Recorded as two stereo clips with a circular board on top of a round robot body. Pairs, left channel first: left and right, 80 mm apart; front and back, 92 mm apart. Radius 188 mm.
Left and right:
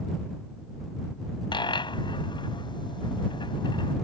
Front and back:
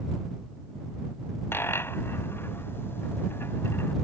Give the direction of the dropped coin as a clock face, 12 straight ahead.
10 o'clock.